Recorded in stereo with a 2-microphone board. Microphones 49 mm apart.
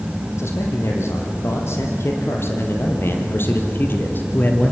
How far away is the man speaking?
About 6 m.